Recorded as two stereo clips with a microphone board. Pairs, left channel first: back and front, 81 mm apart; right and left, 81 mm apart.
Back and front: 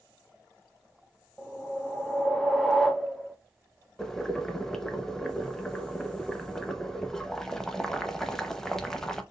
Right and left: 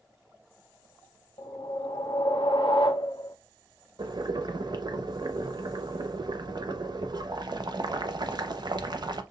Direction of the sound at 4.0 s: 95° left.